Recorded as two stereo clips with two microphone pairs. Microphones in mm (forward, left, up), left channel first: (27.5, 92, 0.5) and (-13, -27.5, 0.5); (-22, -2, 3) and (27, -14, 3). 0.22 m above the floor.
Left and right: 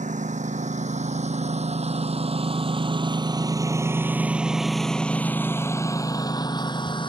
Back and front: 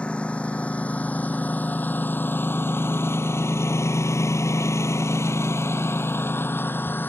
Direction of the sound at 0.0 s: 125° right.